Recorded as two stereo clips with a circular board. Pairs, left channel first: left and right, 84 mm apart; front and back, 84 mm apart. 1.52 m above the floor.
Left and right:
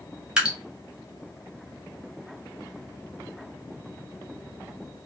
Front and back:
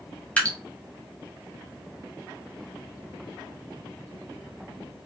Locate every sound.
0.4 s dripping: 35° right, 0.8 m